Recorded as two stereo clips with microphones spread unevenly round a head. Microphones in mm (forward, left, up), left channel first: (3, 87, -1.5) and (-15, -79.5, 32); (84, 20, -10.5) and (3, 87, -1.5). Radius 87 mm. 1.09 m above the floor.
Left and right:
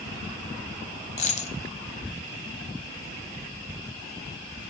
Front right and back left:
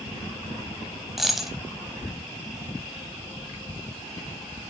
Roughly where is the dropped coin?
Ahead left.